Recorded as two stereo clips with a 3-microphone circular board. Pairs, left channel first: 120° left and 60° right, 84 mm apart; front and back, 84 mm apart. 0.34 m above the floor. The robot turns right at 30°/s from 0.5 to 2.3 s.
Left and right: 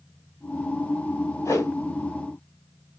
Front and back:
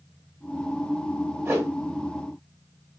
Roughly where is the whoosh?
Behind left.